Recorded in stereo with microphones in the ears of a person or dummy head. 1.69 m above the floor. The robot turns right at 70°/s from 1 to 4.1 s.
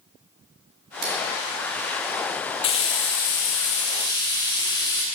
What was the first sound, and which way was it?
Scissors, 50° right (ahead or behind).